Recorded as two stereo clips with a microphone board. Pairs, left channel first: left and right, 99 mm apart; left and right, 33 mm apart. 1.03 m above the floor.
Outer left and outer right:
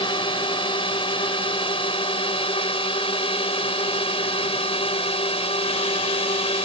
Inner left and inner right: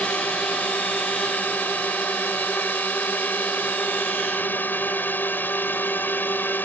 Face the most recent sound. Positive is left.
turn(degrees=70)  # may be behind; listen again after turning